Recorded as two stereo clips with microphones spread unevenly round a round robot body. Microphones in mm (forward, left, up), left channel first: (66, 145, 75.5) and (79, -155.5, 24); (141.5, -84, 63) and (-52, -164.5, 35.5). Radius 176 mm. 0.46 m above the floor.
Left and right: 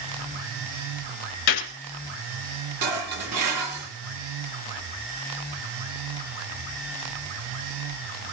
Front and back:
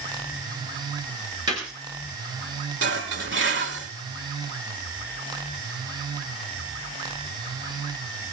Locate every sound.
1.5 s a gunshot: 125° left, 2.5 m
2.8 s dishes clattering: 130° right, 4.5 m